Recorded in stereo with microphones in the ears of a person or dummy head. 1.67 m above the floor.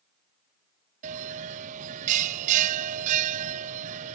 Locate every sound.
1.0 s a bell: 40° right (ahead or behind)